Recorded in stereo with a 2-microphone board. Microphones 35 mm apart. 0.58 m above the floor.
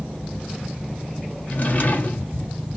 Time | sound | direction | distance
1.5 | a drawer | 45° left (ahead or behind) | 1.3 m